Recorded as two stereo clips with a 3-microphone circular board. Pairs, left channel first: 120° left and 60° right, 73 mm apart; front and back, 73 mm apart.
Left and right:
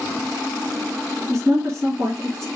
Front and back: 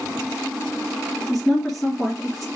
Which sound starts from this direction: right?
A woman speaking, at 1.3 s.